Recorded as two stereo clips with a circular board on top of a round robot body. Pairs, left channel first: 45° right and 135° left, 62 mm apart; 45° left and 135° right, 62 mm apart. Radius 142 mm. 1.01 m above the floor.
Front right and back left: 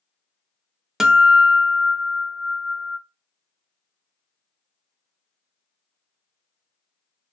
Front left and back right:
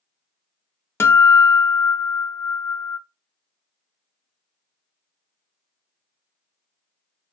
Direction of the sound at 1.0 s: 55° left.